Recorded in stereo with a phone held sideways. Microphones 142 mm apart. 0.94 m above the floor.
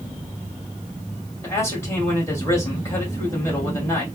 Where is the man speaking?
20° left (ahead or behind), 2 m.